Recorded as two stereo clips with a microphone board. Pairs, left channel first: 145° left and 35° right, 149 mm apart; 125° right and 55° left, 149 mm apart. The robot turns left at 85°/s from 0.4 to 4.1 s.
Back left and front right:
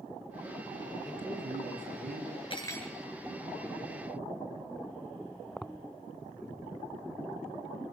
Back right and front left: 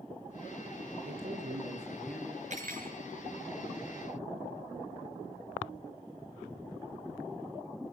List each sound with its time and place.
1.1 s a man speaking: 55° left, 7.5 m; by 2.4 s 60° right, 7.5 m
2.5 s cutlery clinking: 90° left, 4.5 m; by 3.0 s 50° left, 4.5 m